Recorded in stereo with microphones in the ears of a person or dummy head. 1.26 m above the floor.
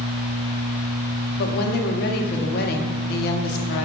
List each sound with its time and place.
1.4 s a woman speaking: 55° left (ahead or behind), 0.7 m